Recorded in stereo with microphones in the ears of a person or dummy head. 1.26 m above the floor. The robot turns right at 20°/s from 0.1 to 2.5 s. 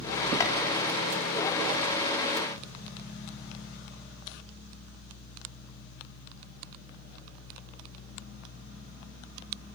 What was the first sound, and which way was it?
Chopping, 25° left (ahead or behind).